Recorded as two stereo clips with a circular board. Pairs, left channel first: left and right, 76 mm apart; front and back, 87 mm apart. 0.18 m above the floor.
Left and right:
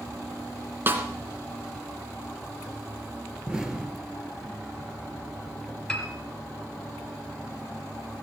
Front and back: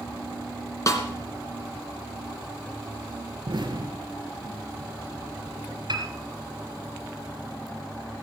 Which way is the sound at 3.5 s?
170° right.